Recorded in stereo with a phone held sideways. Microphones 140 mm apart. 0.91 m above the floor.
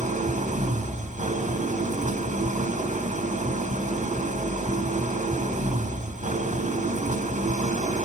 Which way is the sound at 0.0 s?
55° right (ahead or behind).